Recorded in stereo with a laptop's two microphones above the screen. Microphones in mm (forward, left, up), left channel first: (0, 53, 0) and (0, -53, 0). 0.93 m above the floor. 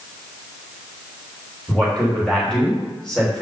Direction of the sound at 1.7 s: 10° left (ahead or behind).